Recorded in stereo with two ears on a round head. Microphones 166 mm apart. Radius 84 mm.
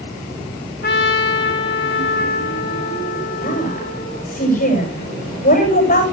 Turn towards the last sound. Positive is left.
turn(degrees=45)  # may be behind; listen again after turning